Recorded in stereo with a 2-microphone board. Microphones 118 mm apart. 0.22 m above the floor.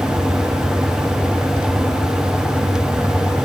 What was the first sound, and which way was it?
Only background noise.